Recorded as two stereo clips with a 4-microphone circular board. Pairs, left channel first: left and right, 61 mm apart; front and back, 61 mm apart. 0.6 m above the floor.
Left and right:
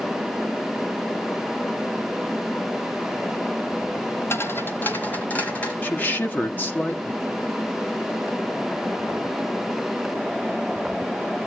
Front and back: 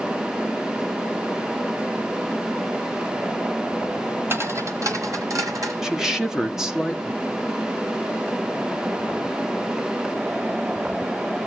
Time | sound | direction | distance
4.3 | footsteps | 130° left | 1.2 m
5.8 | a woman speaking | 110° left | 1.2 m